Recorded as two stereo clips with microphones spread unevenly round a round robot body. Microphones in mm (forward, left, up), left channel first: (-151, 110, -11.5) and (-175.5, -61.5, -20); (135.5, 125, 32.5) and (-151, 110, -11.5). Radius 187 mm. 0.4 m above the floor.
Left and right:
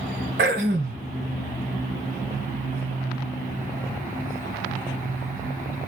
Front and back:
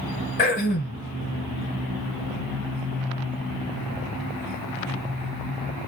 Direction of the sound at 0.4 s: 65° right.